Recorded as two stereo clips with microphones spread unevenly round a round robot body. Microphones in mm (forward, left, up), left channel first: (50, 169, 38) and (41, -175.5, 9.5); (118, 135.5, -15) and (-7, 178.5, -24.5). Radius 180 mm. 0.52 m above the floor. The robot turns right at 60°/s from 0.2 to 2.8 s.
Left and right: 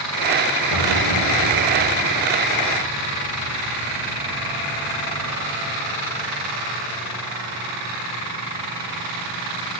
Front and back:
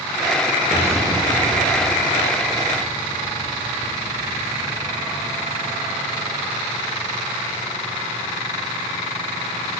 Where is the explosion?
80° left, 2.5 m; by 5.5 s 155° right, 2.5 m.